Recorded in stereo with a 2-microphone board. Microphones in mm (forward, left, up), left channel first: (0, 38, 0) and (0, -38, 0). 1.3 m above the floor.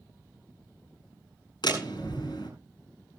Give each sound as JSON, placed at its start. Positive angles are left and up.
{"t": 1.6, "sound": "a door slam", "side_deg": 70, "distance_m": 4.5}